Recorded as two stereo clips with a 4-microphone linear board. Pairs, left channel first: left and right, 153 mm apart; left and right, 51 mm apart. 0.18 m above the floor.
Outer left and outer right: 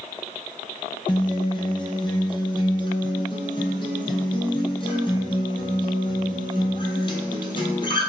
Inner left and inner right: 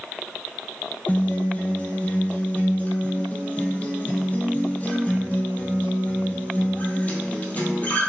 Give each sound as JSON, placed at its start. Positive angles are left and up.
{"t": 1.1, "sound": "a guitar", "side_deg": 35, "distance_m": 0.8}